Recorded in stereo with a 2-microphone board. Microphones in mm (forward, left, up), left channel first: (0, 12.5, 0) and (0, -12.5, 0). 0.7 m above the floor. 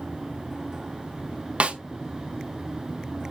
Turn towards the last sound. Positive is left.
turn(degrees=-55)  # may be behind; listen again after turning